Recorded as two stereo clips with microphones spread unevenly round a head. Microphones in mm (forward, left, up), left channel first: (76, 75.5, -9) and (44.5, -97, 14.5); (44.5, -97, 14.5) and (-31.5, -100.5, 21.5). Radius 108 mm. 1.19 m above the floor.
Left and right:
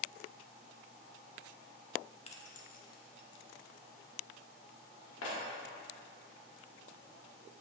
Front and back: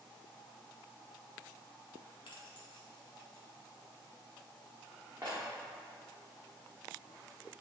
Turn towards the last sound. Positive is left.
turn(degrees=110)